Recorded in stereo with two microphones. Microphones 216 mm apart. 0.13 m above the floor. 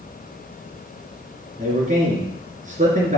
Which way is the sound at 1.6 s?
35° right (ahead or behind).